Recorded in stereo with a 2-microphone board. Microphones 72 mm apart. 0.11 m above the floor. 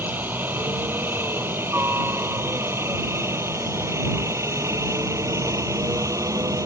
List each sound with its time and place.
0.0 s a helicopter: 25° right (ahead or behind); by 6.7 s 45° right (ahead or behind)